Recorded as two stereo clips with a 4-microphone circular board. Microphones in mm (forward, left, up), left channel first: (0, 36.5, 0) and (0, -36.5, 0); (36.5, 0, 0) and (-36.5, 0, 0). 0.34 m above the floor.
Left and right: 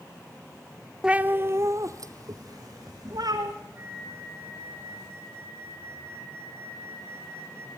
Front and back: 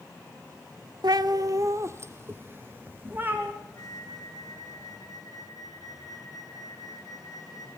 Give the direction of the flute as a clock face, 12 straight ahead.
1 o'clock.